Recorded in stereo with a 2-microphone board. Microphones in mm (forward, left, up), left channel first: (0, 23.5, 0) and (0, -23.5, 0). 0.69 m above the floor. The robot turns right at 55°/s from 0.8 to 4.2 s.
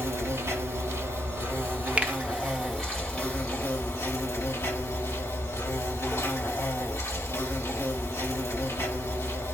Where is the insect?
105° right, 3 m; by 9.6 s 85° left, 3 m.